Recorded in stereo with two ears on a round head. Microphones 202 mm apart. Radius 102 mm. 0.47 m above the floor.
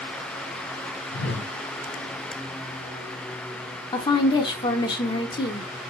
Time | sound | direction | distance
1.1 | a whoosh | 55° left (ahead or behind) | 2.5 m
3.9 | a woman speaking | 20° left (ahead or behind) | 0.7 m